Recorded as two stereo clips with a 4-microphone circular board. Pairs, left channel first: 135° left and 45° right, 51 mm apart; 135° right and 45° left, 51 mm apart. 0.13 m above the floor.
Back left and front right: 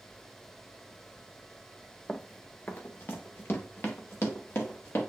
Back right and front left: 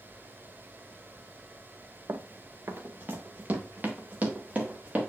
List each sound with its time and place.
2.1 s running footsteps: 65° left, 0.7 m; by 5.1 s 105° left, 2.5 m